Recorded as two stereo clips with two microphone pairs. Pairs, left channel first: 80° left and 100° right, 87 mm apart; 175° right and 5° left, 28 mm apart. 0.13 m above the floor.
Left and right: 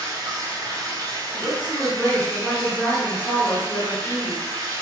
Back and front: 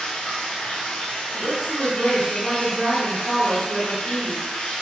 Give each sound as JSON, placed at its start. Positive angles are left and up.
{"t": 0.0, "sound": "running water", "azimuth_deg": -140, "distance_m": 0.9}
{"t": 1.3, "sound": "a woman speaking", "azimuth_deg": 15, "distance_m": 2.0}